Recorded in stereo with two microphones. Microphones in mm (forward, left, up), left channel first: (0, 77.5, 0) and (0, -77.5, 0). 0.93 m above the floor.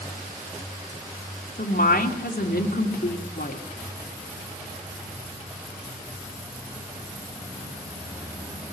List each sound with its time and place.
1.6 s a woman speaking: 70° left (ahead or behind), 3 m